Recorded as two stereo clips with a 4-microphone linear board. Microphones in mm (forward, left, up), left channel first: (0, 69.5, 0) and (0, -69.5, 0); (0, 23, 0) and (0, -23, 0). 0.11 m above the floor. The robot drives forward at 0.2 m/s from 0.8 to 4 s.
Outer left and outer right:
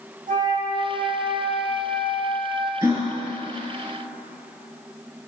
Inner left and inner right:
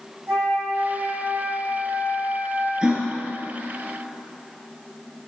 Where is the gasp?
25° right (ahead or behind), 2.5 m.